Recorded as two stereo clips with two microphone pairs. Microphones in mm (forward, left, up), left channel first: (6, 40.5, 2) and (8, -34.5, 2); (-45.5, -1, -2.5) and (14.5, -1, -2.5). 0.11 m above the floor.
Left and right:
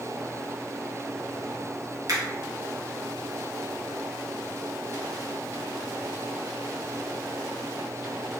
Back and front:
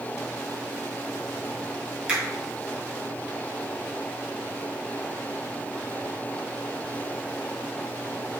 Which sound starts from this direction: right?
A finger snap, at 2.1 s.